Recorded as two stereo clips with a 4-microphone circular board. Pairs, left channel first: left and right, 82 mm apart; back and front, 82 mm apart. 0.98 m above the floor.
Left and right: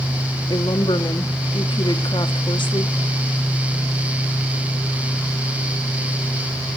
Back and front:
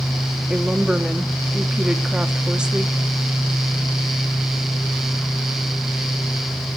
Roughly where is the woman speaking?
Left.